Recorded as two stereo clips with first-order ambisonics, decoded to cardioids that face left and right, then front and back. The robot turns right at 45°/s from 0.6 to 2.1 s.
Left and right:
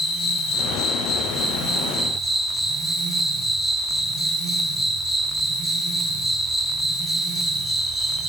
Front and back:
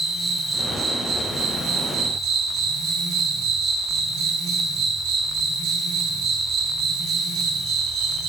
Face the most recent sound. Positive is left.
turn(degrees=165)